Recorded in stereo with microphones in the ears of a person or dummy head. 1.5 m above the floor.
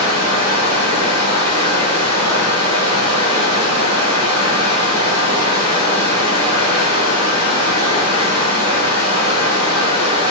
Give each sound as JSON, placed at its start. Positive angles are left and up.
{"t": 0.0, "sound": "running water", "side_deg": 40, "distance_m": 1.7}